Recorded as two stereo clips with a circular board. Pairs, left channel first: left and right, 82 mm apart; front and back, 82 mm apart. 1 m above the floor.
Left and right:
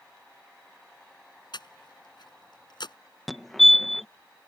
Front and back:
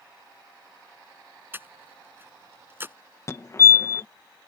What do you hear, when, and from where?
1.5 s breathing: 115° left
3.3 s a fire alarm: straight ahead